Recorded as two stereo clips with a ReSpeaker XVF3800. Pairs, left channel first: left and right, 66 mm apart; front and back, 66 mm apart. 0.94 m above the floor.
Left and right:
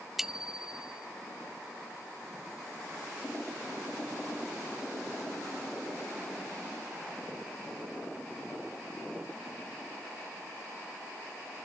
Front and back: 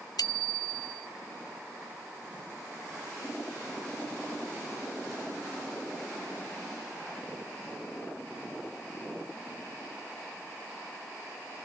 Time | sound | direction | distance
0.2 | a bicycle bell | 5° right | ?